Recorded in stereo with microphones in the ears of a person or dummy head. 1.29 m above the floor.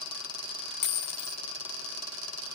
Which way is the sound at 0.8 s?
65° left (ahead or behind).